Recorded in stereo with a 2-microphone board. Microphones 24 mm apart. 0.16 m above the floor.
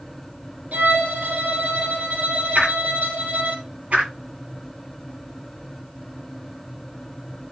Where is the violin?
75° right (ahead or behind), 5.5 m.